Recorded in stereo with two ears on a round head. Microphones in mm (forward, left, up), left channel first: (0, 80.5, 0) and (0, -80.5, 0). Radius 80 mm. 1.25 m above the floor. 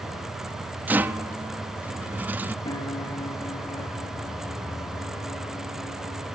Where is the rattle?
10° right (ahead or behind), 0.7 m.